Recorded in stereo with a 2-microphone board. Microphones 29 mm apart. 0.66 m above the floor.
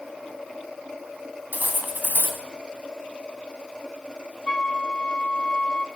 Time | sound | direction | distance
1.5 | cutlery clinking | 70° right (ahead or behind) | 3 m
4.5 | a flute | 25° left (ahead or behind) | 2 m